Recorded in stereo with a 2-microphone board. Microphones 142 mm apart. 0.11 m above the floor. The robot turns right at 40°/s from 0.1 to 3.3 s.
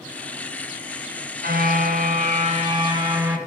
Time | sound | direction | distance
1.4 | a car horn | 85° right | 7.5 m